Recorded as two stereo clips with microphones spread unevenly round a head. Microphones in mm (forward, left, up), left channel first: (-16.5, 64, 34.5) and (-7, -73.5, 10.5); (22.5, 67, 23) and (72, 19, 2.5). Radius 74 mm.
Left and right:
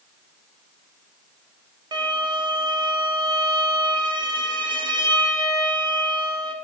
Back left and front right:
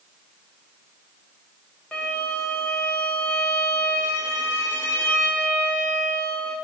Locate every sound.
1.9 s a violin: 140° right, 0.8 m